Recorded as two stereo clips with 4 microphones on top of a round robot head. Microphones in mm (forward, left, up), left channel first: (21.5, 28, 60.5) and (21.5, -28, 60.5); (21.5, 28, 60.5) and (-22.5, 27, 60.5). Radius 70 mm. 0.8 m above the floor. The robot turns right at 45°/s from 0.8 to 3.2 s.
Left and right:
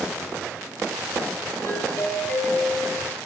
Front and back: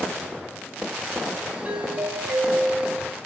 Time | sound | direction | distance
1.6 | a doorbell | 130° left | 5 m